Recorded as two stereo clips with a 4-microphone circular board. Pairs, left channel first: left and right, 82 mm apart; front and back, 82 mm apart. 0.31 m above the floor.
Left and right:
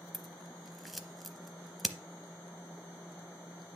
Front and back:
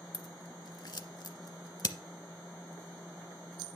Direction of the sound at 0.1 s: Straight ahead.